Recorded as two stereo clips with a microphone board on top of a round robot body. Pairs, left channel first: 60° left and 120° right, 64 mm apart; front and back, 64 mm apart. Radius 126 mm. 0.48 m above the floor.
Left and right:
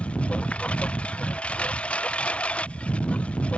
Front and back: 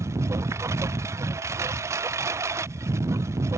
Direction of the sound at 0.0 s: 130° left.